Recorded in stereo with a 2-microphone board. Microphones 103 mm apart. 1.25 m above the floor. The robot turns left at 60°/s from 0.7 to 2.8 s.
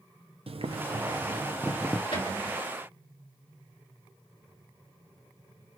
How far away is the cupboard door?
About 2.5 m.